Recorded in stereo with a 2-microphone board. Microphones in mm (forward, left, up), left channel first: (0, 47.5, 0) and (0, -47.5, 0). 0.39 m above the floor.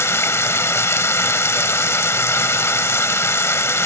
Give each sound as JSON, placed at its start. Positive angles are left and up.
{"t": 0.0, "sound": "running water", "side_deg": 30, "distance_m": 0.9}